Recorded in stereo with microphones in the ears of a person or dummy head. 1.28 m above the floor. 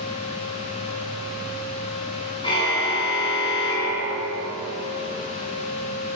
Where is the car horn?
25° left (ahead or behind), 4.5 m.